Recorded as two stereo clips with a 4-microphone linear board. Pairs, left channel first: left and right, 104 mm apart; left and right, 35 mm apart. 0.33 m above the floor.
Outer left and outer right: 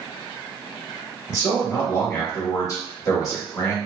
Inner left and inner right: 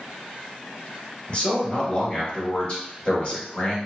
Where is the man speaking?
35° left (ahead or behind), 1.0 m.